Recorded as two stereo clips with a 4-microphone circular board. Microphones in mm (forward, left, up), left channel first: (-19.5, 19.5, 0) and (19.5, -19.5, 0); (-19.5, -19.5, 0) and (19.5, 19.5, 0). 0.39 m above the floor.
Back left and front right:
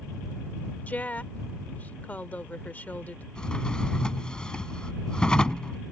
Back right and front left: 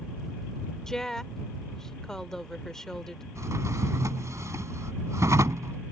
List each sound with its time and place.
0.9 s a woman speaking: 155° left
3.4 s a drawer: 60° left